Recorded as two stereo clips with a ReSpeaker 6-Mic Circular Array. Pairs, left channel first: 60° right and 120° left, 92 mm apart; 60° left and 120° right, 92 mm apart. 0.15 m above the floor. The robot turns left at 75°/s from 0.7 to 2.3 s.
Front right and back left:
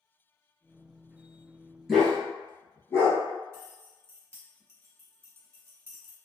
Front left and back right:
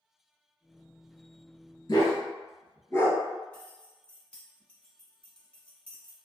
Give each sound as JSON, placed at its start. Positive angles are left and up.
{"t": 1.9, "sound": "a dog barking", "azimuth_deg": 30, "distance_m": 1.2}
{"t": 3.5, "sound": "keys jangling", "azimuth_deg": 125, "distance_m": 0.8}